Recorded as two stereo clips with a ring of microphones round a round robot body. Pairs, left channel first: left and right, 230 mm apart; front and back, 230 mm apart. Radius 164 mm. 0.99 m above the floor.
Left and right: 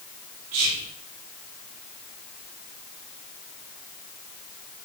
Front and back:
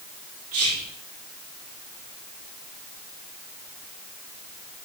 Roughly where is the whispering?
Behind right.